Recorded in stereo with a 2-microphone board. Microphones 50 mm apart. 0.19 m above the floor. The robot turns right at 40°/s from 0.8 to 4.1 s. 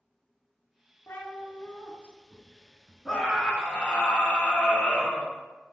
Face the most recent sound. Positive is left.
turn(degrees=45)